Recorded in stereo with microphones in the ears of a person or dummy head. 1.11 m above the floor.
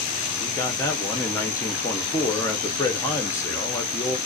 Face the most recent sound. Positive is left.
turn(degrees=10)  # may be behind; listen again after turning